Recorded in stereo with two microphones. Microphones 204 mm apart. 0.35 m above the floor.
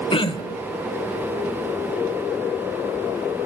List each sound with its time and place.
0.1 s throat clearing: 25° left (ahead or behind), 0.9 m